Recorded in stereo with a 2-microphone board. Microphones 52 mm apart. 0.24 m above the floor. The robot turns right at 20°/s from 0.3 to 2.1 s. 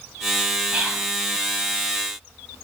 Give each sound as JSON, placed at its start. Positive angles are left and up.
{"t": 0.7, "sound": "whispering", "side_deg": -25, "distance_m": 1.3}